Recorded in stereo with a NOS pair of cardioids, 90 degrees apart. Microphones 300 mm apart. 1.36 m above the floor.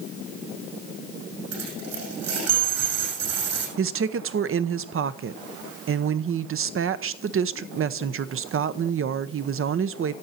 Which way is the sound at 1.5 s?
60° right.